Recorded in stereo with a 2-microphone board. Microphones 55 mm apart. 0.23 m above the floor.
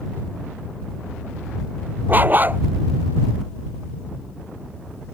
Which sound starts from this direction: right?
A dog barking, at 2.1 s.